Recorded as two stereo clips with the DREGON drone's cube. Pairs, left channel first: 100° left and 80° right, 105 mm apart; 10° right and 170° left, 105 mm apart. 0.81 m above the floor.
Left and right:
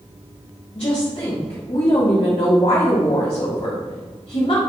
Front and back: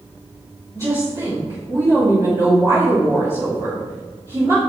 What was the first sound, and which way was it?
A woman speaking, 115° left.